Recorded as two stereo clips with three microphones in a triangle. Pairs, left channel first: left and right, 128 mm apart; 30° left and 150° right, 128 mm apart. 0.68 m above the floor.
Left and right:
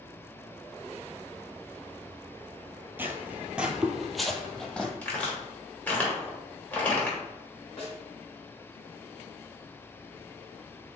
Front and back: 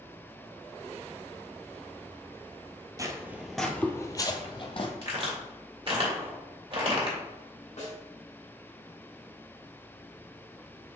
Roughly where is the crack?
Behind.